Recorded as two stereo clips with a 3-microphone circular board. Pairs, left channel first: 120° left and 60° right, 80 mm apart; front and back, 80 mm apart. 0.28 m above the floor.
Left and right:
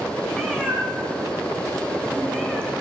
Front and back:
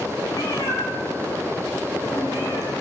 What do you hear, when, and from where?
0.3 s a cat meowing: 45° left, 5 m